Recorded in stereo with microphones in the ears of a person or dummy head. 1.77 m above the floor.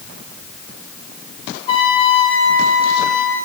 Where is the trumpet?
30° left (ahead or behind), 1.5 m.